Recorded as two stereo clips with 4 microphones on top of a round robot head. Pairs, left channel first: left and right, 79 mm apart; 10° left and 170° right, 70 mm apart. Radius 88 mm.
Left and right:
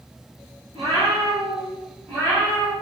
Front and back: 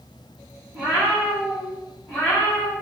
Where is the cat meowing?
100° right, 1.4 m; by 2.7 s 40° left, 1.3 m.